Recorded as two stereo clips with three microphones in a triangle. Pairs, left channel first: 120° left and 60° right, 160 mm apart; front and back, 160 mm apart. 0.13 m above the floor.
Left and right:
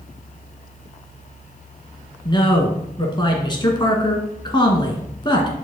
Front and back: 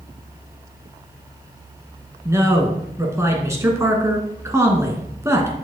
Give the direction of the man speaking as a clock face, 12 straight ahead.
8 o'clock.